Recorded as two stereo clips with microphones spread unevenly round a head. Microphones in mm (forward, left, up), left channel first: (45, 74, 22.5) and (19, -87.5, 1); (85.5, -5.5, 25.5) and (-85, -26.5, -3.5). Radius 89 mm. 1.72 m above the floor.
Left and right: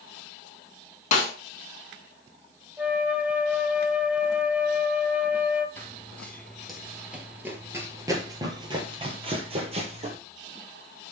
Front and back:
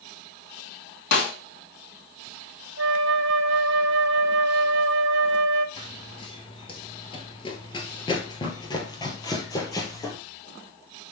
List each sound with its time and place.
1.1 s a snare drum: 35° left, 3 m
2.8 s a flute: 175° left, 0.7 m
5.8 s running footsteps: 20° left, 2 m; by 10.2 s 55° right, 3 m